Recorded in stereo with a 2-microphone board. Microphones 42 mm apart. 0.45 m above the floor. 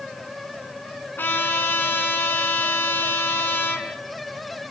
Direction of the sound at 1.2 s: 55° left (ahead or behind).